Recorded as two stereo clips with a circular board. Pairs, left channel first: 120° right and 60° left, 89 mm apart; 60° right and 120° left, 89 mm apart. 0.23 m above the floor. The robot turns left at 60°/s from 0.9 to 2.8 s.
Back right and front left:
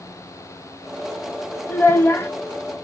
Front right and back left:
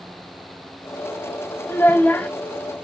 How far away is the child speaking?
About 0.6 m.